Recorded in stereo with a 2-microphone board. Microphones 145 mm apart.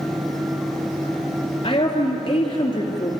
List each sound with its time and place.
1.6 s a woman speaking: 35° left (ahead or behind), 3 m